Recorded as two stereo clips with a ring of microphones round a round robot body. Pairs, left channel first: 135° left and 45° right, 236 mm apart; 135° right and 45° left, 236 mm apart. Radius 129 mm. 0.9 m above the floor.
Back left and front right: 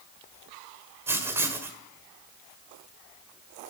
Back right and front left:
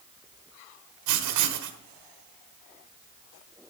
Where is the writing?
35° left, 1.5 m.